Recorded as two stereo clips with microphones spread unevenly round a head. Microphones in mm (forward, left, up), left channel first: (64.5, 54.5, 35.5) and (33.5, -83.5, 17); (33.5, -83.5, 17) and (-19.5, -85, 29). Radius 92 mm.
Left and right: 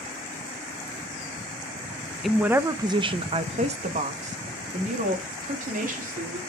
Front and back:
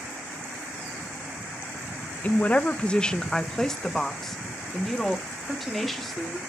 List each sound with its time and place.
2.2 s a woman speaking: 20° right, 0.5 m; by 6.4 s 85° right, 2.5 m